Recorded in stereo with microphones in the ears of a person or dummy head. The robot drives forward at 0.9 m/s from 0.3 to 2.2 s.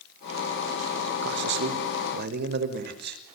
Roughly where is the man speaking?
Right.